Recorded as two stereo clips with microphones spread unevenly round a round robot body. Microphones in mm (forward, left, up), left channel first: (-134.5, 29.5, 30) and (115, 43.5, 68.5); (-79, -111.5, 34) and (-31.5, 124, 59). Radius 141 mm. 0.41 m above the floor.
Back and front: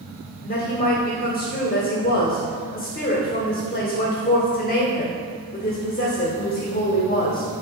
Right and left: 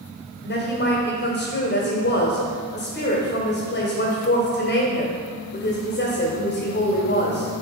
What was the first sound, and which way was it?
A woman speaking, 125° right.